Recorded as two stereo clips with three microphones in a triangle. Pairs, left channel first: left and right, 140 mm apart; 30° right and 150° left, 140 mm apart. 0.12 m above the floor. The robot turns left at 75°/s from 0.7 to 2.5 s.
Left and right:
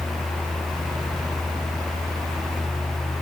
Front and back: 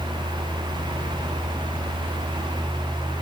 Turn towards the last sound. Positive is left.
No sound to turn to.